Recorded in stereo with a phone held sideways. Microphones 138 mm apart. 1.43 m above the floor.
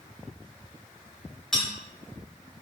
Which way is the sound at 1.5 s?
5° left (ahead or behind).